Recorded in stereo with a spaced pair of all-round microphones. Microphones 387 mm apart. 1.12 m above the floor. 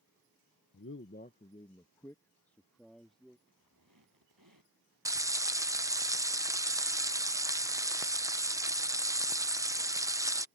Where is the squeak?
60° right (ahead or behind).